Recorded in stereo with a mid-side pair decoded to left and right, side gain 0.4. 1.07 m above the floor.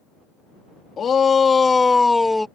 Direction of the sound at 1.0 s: 55° left.